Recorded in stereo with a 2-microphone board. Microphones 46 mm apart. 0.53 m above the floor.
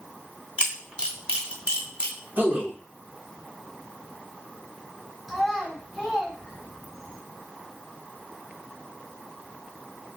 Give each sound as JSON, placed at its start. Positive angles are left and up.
{"t": 0.6, "sound": "a camera shutter", "side_deg": -25, "distance_m": 0.9}
{"t": 2.4, "sound": "a man speaking", "side_deg": -40, "distance_m": 1.1}
{"t": 5.3, "sound": "a child speaking", "side_deg": -5, "distance_m": 1.6}